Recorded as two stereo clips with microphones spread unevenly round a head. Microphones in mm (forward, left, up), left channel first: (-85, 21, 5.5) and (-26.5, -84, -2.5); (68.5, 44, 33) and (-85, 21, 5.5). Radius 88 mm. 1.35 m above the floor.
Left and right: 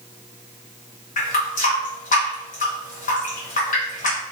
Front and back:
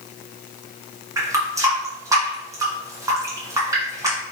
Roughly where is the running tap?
Behind left.